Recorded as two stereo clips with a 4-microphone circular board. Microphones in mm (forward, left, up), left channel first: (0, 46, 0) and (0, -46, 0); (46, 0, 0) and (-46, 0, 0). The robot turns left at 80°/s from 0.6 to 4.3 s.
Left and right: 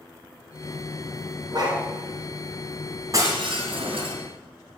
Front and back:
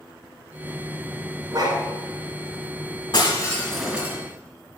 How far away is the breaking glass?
About 2.5 m.